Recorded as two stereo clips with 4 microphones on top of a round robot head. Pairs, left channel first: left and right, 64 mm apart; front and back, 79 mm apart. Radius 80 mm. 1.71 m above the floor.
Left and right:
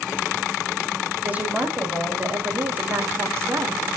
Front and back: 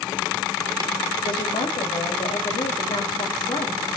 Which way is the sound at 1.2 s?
25° right.